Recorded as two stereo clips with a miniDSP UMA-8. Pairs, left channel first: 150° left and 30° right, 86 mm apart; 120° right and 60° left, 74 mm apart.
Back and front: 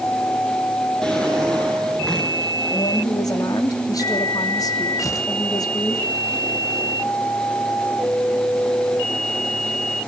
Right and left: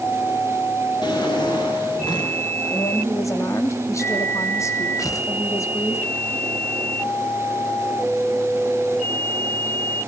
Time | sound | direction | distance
1.0 | a drawer | 130° right | 7 m
2.7 | a woman speaking | 165° right | 3 m
5.0 | tearing paper | 160° right | 2 m